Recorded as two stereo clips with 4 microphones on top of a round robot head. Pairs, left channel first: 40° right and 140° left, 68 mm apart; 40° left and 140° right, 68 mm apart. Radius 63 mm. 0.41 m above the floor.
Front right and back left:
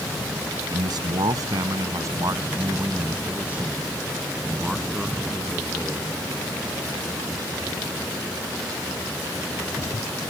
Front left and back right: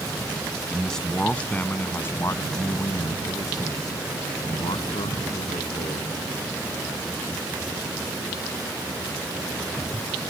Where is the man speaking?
125° left; by 6.2 s 40° left.